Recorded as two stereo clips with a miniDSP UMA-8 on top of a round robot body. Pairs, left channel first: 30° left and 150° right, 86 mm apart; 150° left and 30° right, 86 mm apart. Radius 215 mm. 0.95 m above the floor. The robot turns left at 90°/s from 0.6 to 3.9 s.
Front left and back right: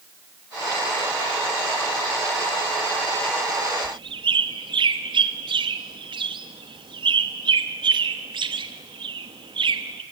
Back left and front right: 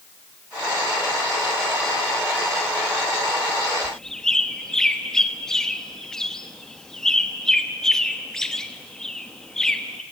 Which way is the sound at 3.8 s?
120° right.